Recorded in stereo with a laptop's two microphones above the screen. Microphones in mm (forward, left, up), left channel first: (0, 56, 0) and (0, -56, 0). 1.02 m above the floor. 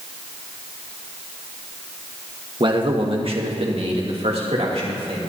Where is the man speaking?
45° right (ahead or behind), 1.3 m; by 5.2 s 70° right (ahead or behind), 3 m.